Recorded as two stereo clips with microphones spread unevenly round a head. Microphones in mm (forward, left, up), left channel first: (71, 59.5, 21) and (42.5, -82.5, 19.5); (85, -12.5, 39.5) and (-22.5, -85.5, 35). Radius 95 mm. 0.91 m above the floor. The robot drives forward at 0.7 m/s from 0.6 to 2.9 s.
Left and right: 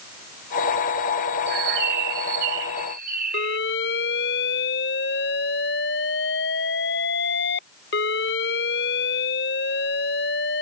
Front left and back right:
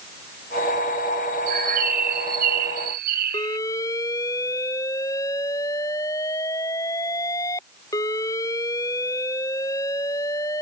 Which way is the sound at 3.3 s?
110° left.